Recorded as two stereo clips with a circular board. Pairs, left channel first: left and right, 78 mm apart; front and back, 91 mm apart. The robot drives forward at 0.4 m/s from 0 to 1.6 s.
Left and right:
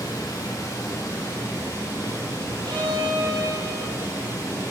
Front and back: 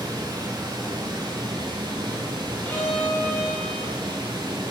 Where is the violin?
70° right, 3.5 m.